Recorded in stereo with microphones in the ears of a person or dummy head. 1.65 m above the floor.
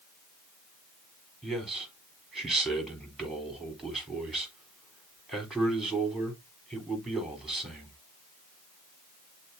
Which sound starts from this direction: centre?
A man speaking, at 1.4 s.